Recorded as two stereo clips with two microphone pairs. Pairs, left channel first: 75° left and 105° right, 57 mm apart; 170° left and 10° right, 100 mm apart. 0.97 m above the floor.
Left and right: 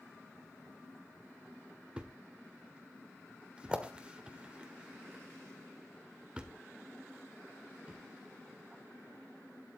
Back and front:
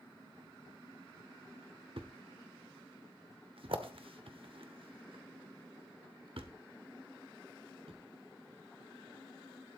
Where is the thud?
30° right, 1.4 m.